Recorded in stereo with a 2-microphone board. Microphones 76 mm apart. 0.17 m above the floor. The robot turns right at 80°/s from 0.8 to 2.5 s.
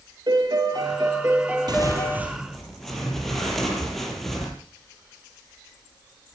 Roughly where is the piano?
Right.